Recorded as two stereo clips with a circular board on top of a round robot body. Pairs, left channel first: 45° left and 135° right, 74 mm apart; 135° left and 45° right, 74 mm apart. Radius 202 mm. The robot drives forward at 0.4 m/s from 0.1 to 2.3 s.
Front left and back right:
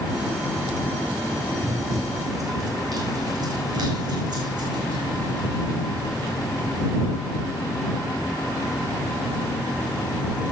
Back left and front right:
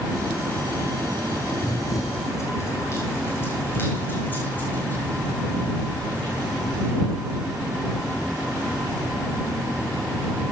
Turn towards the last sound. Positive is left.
turn(degrees=-145)